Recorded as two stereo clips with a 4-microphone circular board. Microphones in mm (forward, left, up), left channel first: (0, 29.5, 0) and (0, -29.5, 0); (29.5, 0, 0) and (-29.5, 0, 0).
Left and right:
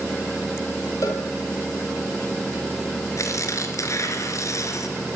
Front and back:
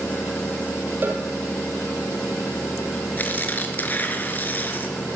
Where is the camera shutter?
I don't hear a camera shutter.